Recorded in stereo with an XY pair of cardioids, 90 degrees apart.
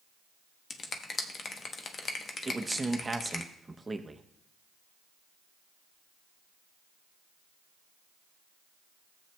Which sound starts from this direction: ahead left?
A finger snap, at 0.7 s.